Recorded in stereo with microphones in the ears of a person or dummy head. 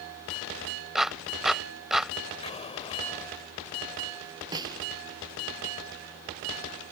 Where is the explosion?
25° left (ahead or behind).